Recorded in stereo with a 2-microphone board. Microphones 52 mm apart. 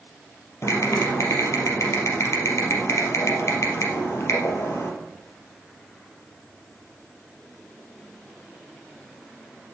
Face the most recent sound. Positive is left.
turn(degrees=65)  # may be behind; listen again after turning